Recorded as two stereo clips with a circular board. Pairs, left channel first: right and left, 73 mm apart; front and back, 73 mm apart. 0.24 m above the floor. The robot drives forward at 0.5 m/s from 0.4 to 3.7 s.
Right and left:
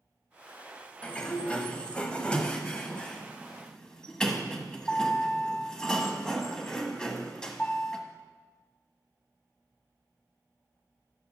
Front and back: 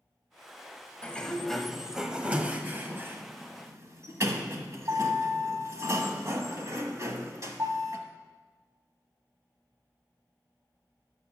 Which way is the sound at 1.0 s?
40° right.